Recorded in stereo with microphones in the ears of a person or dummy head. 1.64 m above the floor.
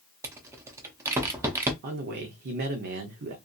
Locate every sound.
0.2 s a rattle: 15° right (ahead or behind), 0.5 m
1.8 s a man speaking: 55° right (ahead or behind), 0.7 m